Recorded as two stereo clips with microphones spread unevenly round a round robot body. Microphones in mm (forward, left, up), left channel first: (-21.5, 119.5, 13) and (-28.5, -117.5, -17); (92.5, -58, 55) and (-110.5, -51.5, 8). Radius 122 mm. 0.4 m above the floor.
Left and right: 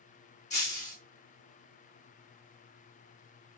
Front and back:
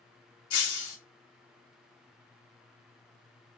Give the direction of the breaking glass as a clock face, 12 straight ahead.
11 o'clock.